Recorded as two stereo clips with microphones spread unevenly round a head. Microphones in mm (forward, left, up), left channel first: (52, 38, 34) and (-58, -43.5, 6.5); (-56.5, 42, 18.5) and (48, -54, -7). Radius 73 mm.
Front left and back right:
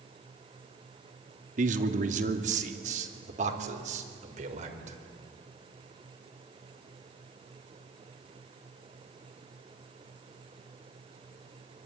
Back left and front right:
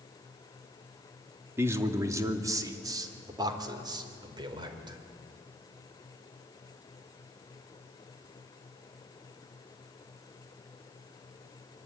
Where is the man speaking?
115° right, 2.5 m; by 5.0 s 105° right, 4.5 m.